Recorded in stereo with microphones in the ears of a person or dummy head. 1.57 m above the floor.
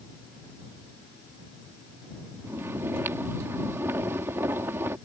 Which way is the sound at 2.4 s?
15° right (ahead or behind).